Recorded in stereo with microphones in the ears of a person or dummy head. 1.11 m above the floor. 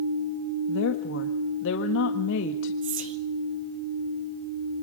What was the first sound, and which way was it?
A woman speaking, 70° left (ahead or behind).